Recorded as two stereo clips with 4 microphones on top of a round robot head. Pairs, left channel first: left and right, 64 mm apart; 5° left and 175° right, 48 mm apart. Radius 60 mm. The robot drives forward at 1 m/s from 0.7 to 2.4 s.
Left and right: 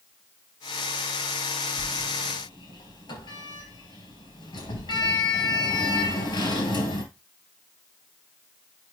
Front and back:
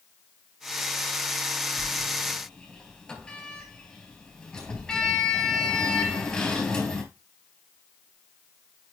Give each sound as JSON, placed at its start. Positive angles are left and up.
{"t": 1.8, "sound": "a sliding door", "azimuth_deg": 70, "distance_m": 4.0}